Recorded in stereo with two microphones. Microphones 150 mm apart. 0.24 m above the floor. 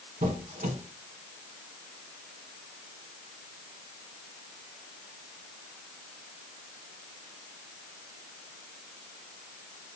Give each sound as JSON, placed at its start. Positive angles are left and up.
{"t": 0.2, "sound": "a squeak", "side_deg": -65, "distance_m": 1.1}